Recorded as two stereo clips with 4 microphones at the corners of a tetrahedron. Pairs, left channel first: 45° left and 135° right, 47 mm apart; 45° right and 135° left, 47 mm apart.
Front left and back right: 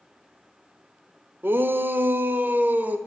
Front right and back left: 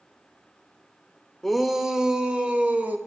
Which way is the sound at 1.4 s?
130° right.